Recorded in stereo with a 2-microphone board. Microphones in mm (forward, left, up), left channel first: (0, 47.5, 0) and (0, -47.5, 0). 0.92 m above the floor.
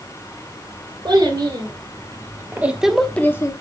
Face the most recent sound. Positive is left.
turn(degrees=35)  # may be behind; listen again after turning